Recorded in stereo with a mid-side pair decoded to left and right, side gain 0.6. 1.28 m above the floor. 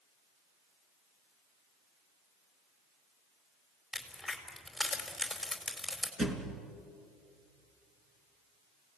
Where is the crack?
Straight ahead, 4.5 m.